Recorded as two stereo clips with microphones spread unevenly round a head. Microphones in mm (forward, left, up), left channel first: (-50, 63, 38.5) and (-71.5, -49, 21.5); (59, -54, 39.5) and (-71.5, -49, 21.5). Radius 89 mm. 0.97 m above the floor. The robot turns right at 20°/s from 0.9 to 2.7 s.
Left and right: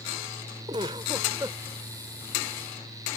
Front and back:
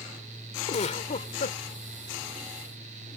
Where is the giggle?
35° right; by 1.6 s 20° right.